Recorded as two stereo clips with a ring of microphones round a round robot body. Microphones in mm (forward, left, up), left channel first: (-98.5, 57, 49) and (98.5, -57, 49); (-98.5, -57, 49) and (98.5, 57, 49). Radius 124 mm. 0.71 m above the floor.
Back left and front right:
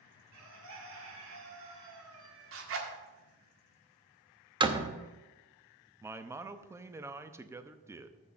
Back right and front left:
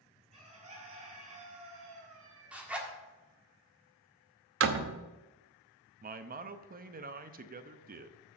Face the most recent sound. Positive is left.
turn(degrees=40)